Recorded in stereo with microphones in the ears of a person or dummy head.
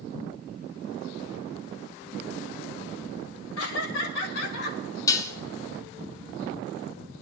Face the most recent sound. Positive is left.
turn(degrees=20)  # may be behind; listen again after turning